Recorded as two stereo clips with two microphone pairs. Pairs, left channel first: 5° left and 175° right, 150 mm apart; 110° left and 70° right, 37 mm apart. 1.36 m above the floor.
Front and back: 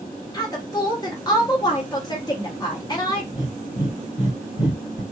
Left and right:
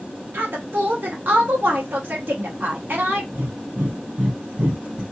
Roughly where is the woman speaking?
Ahead right.